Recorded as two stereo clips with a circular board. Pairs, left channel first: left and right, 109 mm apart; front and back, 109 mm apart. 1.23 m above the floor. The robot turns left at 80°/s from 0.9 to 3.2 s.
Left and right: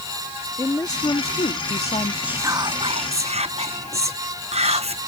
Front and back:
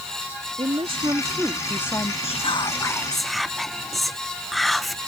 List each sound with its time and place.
0.6 s a woman speaking: 145° left; by 2.1 s 50° left
2.2 s whispering: 10° right; by 5.0 s 90° right